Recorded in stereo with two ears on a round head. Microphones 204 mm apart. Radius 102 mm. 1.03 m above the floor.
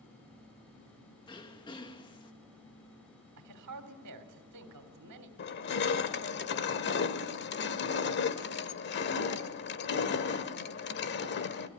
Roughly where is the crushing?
Left.